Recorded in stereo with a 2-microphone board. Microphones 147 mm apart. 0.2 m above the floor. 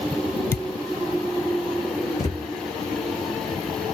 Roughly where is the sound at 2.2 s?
Left.